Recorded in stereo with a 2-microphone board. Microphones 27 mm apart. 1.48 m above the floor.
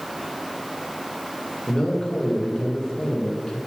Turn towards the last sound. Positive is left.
turn(degrees=35)  # may be behind; listen again after turning